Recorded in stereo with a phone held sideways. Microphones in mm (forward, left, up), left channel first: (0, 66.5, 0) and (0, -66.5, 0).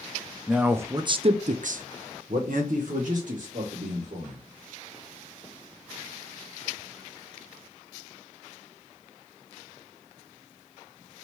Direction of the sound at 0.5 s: 5° right (ahead or behind).